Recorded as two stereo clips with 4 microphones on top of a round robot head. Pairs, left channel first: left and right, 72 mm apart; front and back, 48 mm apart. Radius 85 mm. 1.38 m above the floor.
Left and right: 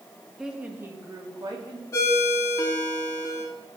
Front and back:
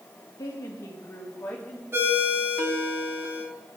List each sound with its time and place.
0.4 s a woman speaking: 5° right, 1.8 m; by 1.8 s 65° right, 2.5 m
1.9 s a ringtone: 140° left, 3 m